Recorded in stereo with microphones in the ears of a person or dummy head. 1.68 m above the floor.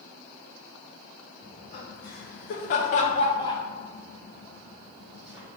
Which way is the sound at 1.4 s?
45° left (ahead or behind).